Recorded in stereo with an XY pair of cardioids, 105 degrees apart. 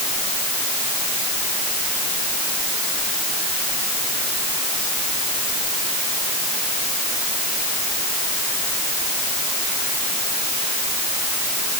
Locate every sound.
Only background noise.